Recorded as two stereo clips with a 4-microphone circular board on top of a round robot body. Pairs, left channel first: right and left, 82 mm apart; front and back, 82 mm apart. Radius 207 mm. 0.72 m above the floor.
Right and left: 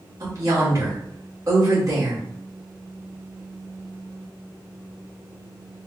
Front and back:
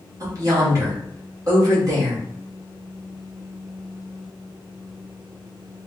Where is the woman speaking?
135° left, 2 m.